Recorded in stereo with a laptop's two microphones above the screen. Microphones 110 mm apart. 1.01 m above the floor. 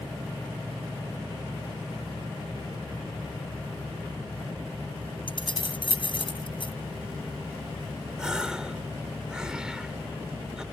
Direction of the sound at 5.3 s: 50° left (ahead or behind).